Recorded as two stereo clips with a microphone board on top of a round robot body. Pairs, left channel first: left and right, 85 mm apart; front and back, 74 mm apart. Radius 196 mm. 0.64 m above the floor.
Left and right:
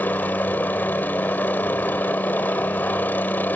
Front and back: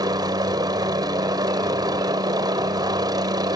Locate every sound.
0.0 s a helicopter: 160° left